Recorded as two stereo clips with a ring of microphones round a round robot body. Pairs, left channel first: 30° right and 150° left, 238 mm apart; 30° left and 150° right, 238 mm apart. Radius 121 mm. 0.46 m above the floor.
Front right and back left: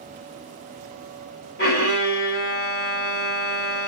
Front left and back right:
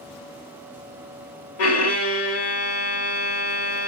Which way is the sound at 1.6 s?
20° left.